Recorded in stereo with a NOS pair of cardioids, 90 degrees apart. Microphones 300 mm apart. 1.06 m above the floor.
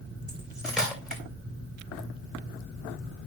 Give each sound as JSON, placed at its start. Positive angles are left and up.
{"t": 0.3, "sound": "cutlery clinking", "azimuth_deg": 0, "distance_m": 2.5}